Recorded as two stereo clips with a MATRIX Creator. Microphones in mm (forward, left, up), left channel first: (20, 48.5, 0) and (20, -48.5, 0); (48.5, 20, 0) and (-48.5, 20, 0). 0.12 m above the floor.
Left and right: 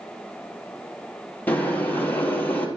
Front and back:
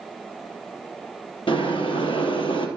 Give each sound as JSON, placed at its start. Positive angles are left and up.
{"t": 1.5, "sound": "boiling", "azimuth_deg": 20, "distance_m": 2.5}